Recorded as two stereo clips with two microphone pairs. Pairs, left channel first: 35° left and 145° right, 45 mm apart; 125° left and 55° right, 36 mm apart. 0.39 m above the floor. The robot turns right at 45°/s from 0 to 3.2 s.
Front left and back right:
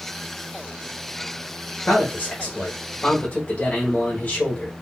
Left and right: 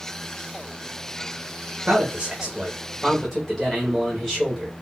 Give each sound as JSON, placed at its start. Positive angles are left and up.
{"t": 1.9, "sound": "a man speaking", "azimuth_deg": -10, "distance_m": 1.0}